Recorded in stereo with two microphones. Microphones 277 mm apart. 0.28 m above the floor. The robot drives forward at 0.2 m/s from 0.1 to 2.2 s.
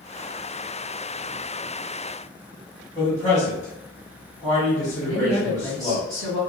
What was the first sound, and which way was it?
A man speaking, 10° left (ahead or behind).